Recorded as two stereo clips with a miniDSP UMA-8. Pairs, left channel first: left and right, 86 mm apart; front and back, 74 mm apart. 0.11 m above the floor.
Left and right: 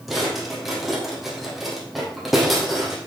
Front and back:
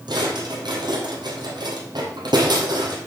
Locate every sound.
0.1 s a drawer: straight behind, 2.5 m